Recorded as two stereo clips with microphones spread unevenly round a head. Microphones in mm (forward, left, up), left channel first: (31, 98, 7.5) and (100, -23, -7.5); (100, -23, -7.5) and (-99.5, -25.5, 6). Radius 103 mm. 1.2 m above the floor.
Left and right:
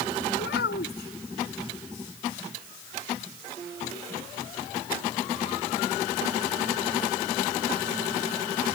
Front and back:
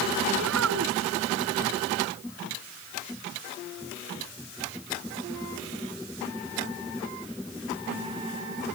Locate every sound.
0.4 s a child speaking: 150° left